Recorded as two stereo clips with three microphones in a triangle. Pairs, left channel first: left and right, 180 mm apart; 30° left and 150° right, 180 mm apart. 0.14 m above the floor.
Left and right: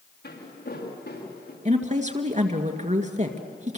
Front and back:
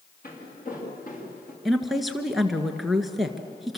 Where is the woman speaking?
60° right, 1.9 m.